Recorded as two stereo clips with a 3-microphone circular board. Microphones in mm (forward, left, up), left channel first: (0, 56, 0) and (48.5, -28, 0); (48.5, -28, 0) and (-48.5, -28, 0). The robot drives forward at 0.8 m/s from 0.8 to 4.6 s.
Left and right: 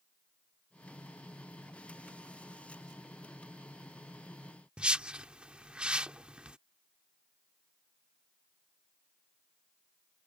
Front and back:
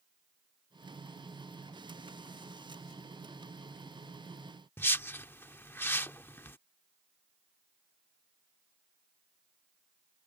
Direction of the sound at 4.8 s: 5° left.